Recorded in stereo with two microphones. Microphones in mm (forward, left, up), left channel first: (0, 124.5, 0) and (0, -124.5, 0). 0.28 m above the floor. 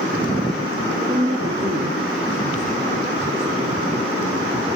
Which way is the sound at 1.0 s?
20° right (ahead or behind).